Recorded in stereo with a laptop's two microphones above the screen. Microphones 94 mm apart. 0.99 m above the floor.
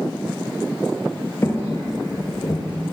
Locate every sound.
1.4 s footsteps: 30° left (ahead or behind), 1.1 m; by 2.6 s 50° left (ahead or behind), 1.3 m